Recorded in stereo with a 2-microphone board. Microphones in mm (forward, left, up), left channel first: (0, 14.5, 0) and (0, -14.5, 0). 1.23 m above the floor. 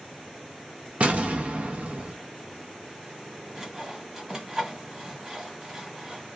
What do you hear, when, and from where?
1.0 s an explosion: 50° right (ahead or behind), 0.7 m
3.5 s sawing: 20° right (ahead or behind), 1.4 m